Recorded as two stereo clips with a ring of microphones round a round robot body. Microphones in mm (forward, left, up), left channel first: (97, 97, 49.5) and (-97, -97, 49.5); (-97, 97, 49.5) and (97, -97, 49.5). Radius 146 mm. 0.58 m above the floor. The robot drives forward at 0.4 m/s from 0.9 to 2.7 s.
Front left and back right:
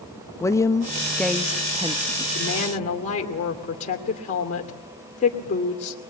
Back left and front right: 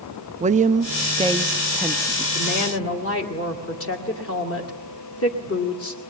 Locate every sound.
0.4 s a woman speaking: 20° right, 0.8 m; by 2.2 s 150° right, 0.7 m
2.4 s a woman speaking: 100° left, 2.5 m; by 6.0 s 105° left, 2.5 m